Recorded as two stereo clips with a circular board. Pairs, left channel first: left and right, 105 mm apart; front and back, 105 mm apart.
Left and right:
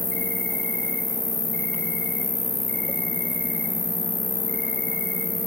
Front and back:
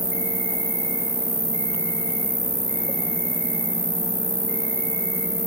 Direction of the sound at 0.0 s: 165° left.